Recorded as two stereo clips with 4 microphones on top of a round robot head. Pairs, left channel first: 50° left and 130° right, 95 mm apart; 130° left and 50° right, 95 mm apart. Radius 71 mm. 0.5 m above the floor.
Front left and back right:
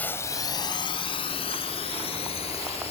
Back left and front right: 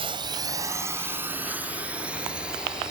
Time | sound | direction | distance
0.0 | a drone | 20° right | ?